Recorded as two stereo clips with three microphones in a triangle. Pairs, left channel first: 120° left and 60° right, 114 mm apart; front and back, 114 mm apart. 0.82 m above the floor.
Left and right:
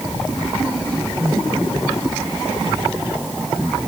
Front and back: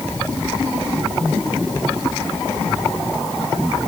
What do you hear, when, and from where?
Only background noise.